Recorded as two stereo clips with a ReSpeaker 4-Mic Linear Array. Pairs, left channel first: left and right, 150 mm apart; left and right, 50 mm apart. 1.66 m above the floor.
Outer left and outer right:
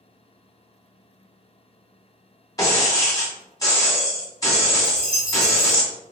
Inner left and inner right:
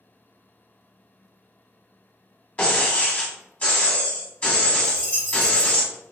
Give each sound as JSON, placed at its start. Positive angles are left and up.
{"t": 2.6, "sound": "breaking glass", "side_deg": 25, "distance_m": 1.1}
{"t": 4.8, "sound": "a dropped coin", "side_deg": -35, "distance_m": 1.5}